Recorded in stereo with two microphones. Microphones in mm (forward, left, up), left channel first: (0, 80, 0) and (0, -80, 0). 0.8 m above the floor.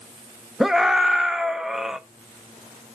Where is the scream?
5° right (ahead or behind), 0.6 m.